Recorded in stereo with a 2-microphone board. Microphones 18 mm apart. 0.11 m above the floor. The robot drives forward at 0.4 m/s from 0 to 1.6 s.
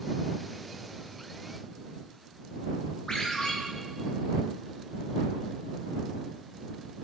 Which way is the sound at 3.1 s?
50° left (ahead or behind).